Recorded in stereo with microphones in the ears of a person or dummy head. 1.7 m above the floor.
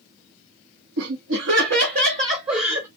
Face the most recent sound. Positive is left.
turn(degrees=-30)  # may be behind; listen again after turning